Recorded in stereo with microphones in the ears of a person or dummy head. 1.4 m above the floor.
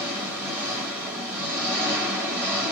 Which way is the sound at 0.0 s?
10° right (ahead or behind).